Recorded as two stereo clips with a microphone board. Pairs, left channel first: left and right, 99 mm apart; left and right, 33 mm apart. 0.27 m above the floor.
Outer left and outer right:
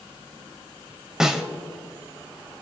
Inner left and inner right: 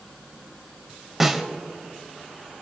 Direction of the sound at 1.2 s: 5° right (ahead or behind).